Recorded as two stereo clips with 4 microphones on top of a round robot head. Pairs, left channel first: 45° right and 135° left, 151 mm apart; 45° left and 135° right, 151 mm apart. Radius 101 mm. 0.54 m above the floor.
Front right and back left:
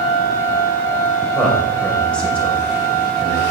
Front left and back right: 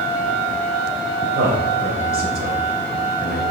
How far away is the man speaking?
About 2 m.